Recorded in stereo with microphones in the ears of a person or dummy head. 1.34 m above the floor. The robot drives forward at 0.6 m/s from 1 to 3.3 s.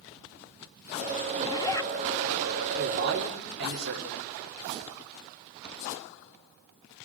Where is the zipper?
30° left (ahead or behind), 0.7 m; by 1.9 s 20° left (ahead or behind), 1.0 m.